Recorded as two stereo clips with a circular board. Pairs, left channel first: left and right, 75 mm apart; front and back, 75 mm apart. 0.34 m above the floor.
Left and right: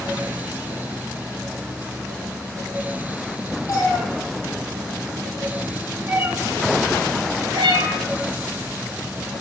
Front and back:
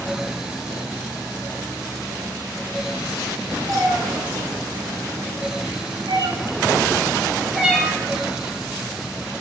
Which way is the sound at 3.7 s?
135° left.